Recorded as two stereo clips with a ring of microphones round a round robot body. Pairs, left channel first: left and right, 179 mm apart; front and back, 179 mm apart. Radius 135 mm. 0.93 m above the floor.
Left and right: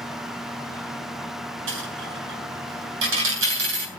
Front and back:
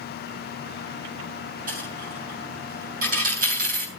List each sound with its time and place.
1.7 s a dropped coin: 120° right, 3.5 m